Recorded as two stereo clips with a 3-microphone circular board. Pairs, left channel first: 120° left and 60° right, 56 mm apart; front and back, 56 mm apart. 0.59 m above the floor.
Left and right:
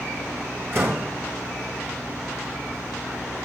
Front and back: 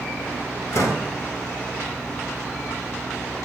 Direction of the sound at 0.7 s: 20° right.